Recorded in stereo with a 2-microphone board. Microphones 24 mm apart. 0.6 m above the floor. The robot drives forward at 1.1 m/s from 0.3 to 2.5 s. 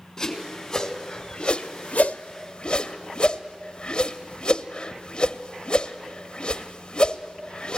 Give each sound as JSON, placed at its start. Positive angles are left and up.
{"t": 0.2, "sound": "a whoosh", "side_deg": 15, "distance_m": 2.0}